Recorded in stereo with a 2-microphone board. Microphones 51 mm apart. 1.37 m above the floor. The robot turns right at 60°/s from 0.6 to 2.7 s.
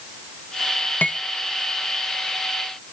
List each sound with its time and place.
1.0 s cutlery clinking: 35° left (ahead or behind), 0.7 m; by 1.2 s 30° left (ahead or behind), 0.7 m